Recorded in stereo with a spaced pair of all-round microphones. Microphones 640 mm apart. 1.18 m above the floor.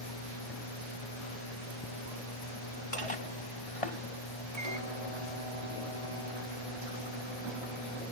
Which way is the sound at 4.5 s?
70° right (ahead or behind).